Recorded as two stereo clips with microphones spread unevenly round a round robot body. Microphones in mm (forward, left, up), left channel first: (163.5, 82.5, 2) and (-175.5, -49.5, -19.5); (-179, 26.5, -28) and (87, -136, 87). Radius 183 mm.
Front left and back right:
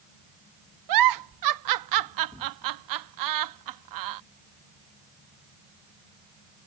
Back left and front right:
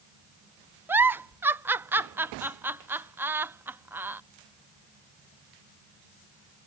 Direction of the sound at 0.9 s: 125° right.